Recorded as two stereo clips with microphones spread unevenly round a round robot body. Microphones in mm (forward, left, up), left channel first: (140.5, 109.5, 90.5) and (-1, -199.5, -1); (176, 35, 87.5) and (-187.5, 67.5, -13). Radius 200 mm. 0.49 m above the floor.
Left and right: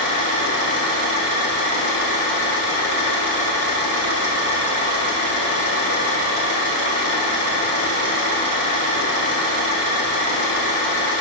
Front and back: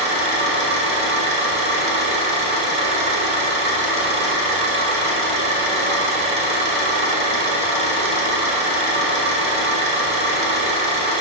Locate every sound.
0.0 s an engine running: 110° left, 1.7 m